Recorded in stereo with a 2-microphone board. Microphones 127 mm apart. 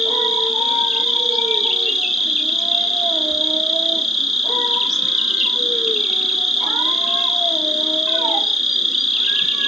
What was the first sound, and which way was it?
An insect, centre (ahead or behind).